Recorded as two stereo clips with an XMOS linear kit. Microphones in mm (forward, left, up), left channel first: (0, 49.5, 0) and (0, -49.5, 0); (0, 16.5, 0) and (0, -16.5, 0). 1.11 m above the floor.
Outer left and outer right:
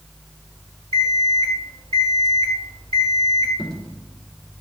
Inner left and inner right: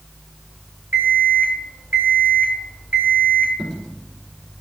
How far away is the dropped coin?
About 3.5 m.